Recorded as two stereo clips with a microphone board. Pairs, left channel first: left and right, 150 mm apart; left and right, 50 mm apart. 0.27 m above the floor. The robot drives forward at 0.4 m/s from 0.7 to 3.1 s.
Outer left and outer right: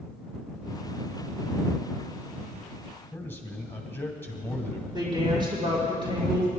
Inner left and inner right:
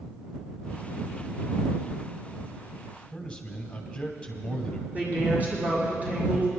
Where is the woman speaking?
30° right (ahead or behind), 5 m.